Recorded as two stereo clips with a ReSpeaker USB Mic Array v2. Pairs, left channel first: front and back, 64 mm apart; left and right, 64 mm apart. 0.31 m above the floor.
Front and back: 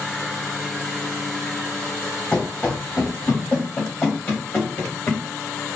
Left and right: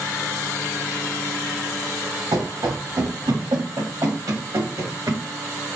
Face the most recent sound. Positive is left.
turn(degrees=-60)